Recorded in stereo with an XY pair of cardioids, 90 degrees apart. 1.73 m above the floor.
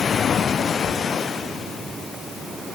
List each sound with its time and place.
Only background noise.